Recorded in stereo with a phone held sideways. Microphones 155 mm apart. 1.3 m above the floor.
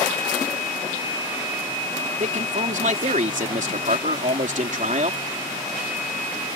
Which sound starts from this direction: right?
A man speaking, at 2.2 s.